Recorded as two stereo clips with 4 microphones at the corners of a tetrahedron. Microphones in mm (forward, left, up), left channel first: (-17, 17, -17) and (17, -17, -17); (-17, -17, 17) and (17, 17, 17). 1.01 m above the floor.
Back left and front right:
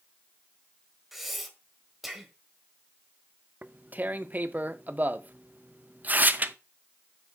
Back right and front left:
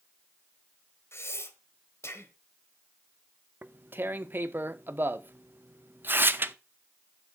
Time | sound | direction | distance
1.1 | breathing | 130° right | 1.4 m
3.6 | tearing paper | 5° left | 0.6 m